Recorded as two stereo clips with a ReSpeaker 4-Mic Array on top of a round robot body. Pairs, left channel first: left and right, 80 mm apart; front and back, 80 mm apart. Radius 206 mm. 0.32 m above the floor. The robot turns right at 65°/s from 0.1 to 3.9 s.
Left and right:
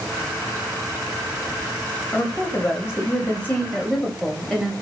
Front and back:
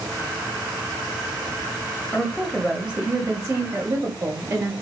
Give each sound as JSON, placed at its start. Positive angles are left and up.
{"t": 2.1, "sound": "a woman speaking", "azimuth_deg": 55, "distance_m": 1.0}